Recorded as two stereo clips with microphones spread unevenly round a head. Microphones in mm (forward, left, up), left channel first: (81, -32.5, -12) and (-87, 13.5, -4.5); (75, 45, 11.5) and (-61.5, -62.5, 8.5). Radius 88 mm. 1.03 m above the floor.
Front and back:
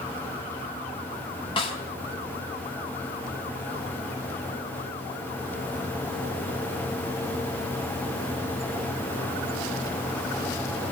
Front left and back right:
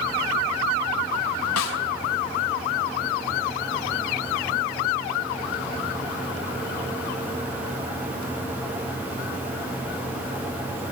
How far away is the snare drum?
About 3.5 m.